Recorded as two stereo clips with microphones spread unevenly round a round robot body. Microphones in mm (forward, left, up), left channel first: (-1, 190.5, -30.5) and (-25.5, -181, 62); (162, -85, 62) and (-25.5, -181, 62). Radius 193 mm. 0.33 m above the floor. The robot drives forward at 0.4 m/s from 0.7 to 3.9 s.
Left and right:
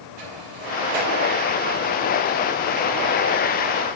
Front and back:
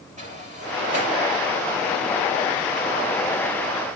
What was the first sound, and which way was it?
A sliding door, 95° right.